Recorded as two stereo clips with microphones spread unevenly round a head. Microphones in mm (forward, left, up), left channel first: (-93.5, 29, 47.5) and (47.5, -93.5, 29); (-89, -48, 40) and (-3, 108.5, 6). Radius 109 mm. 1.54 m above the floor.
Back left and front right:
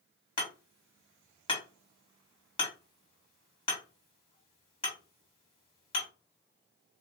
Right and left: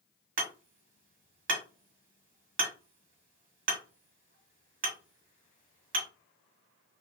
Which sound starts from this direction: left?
Hammering, at 0.4 s.